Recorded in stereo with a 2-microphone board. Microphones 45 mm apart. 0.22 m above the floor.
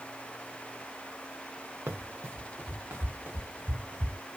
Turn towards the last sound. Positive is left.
turn(degrees=-45)  # may be behind; listen again after turning